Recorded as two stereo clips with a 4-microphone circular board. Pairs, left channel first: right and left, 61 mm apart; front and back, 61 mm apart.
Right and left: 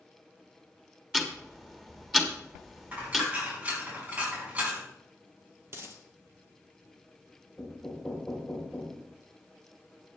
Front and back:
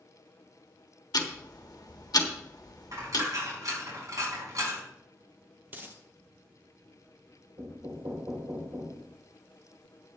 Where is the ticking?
5° left, 1.5 m.